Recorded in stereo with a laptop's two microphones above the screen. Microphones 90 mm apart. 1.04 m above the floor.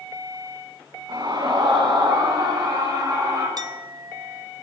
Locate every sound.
1.1 s a scream: 55° right (ahead or behind), 9 m; by 3.5 s 40° right (ahead or behind), 9 m
3.6 s a clink: 45° right (ahead or behind), 0.9 m